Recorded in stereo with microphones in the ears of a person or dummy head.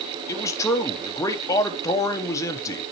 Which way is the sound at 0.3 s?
20° left (ahead or behind).